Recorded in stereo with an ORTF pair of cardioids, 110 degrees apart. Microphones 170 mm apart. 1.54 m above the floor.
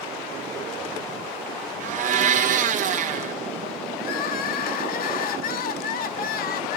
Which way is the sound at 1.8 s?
50° right.